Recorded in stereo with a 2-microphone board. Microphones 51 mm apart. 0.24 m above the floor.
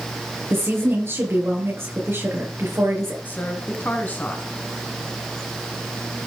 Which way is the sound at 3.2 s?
40° left (ahead or behind).